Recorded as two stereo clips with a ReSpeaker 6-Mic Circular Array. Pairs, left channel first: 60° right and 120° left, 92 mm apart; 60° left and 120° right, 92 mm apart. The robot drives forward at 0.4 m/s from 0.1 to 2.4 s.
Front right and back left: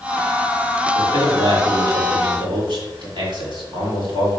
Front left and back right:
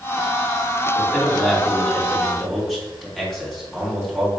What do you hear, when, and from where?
0.9 s a man speaking: 140° left, 3 m; by 4.3 s 145° left, 3.5 m